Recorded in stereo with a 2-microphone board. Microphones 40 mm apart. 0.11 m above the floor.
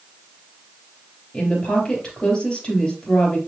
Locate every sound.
1.3 s a woman speaking: 25° left (ahead or behind), 3 m